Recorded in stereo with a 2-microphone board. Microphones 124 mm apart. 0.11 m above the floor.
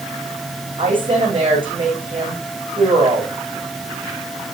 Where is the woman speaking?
40° right (ahead or behind), 7.5 m.